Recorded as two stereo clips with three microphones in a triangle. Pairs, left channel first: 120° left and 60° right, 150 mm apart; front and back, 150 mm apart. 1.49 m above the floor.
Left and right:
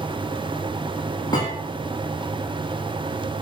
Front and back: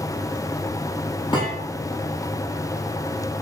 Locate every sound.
1.3 s a thud: 55° left, 10 m